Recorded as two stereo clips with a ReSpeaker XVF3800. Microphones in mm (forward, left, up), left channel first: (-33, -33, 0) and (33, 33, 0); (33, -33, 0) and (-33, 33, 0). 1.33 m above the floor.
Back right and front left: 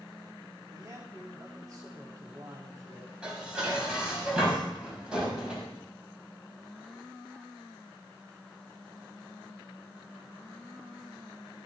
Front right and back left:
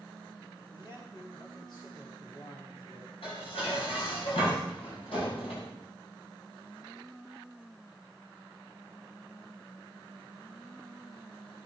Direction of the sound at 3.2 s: 35° right.